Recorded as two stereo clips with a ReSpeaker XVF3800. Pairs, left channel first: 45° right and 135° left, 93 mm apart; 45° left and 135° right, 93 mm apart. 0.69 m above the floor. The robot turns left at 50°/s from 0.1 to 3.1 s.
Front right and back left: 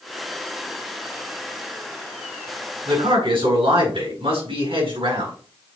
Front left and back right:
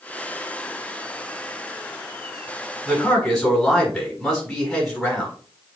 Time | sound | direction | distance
2.9 | a man speaking | 140° left | 5 m